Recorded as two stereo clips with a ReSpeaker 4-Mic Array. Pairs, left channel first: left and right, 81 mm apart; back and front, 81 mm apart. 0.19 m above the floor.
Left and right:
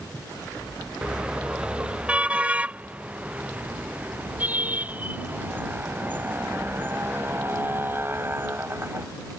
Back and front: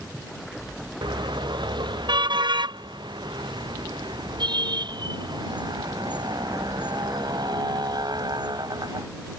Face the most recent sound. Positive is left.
turn(degrees=-30)